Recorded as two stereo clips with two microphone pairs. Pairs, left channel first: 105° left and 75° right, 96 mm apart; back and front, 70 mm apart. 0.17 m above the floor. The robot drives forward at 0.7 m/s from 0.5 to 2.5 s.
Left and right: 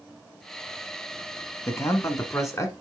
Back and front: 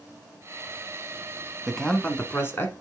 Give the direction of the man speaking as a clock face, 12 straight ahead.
9 o'clock.